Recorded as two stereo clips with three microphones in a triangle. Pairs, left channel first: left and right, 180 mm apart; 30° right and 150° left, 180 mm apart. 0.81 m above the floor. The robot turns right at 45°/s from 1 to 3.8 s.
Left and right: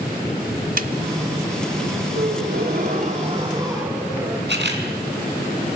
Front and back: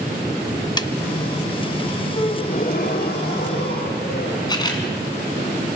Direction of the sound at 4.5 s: 95° right.